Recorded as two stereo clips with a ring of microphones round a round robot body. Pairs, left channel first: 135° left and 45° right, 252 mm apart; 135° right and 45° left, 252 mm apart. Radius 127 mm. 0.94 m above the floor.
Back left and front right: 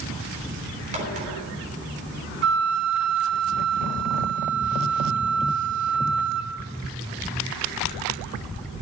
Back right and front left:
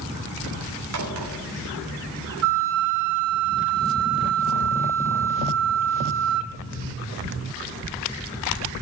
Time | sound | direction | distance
0.9 | a crack | 20° left | 3.5 m
2.4 | a flute | 5° left | 1.1 m